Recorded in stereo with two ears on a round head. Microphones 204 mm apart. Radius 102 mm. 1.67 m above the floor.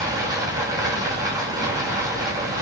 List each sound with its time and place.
0.0 s running water: 15° right (ahead or behind), 5.5 m